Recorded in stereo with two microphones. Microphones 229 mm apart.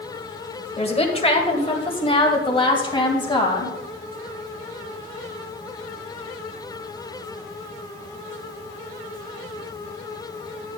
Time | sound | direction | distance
0.8 | a woman speaking | 25° left (ahead or behind) | 1.6 m